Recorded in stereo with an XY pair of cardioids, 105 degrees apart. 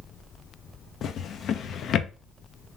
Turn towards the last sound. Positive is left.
turn(degrees=60)